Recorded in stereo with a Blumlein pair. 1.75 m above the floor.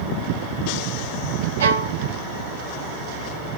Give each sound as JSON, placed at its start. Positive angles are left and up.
{"t": 1.6, "sound": "a violin", "azimuth_deg": -65, "distance_m": 0.8}